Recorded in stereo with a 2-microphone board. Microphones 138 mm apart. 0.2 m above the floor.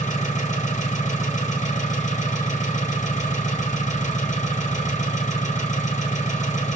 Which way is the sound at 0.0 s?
60° left (ahead or behind).